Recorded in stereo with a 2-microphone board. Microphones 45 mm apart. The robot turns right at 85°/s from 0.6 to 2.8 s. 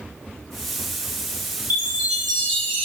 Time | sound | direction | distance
1.7 | a chime | 50° right | 1.1 m